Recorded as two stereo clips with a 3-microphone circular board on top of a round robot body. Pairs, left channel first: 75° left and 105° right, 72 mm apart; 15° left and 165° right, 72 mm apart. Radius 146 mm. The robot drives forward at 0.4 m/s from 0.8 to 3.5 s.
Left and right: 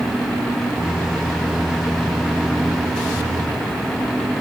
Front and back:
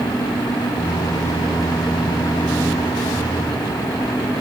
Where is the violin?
I don't hear a violin.